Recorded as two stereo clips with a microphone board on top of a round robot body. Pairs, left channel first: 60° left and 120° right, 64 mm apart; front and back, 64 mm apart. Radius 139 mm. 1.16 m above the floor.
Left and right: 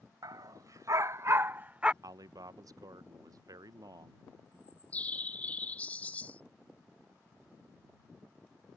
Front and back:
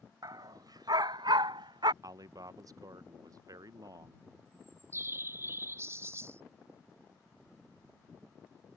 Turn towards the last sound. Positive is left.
turn(degrees=125)